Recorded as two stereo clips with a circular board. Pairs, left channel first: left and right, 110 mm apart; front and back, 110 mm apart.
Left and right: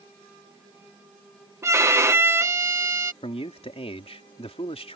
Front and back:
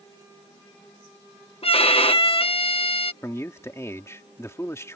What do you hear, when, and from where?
1.6 s a violin: 25° right
3.2 s a man speaking: 65° left